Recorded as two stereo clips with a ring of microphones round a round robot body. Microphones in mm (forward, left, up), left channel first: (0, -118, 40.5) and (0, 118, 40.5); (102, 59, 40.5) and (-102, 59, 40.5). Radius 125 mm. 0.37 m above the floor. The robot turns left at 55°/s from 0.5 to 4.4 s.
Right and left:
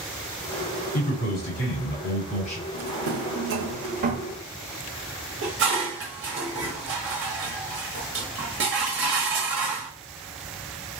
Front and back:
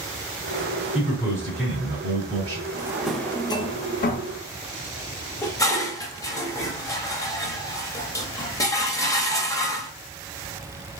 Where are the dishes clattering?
70° left, 1.1 m.